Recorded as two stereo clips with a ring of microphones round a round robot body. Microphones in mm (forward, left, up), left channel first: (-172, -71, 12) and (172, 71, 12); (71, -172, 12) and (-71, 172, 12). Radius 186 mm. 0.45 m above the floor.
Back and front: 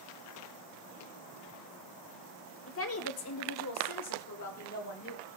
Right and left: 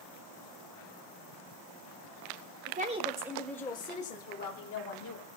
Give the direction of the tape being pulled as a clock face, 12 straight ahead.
No tape being pulled in this recording.